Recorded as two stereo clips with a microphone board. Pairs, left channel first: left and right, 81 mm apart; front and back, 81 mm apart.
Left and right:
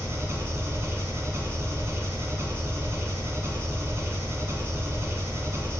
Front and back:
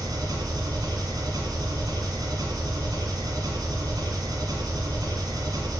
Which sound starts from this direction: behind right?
An engine running, at 0.0 s.